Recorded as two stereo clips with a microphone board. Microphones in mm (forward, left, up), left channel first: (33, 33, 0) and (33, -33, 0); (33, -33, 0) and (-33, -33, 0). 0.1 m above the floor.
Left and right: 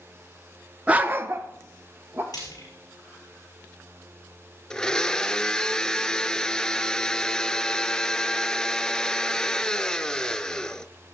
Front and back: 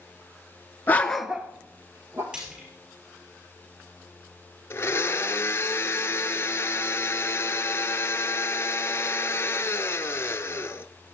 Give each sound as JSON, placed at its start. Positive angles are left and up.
{"t": 0.9, "sound": "a dog barking", "azimuth_deg": -35, "distance_m": 0.7}
{"t": 2.3, "sound": "frying", "azimuth_deg": 105, "distance_m": 5.5}
{"t": 4.7, "sound": "a blender", "azimuth_deg": 15, "distance_m": 0.6}